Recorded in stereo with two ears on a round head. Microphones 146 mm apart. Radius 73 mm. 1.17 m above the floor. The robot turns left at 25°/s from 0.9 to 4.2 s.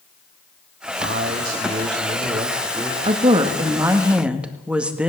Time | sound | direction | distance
1.0 | a man speaking | 120° right | 2.5 m
3.0 | a woman speaking | 35° right (ahead or behind) | 2 m